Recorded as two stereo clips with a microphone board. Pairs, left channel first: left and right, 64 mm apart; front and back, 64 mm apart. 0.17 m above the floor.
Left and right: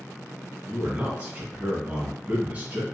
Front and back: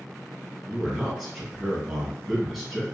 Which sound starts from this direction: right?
A man speaking, at 0.7 s.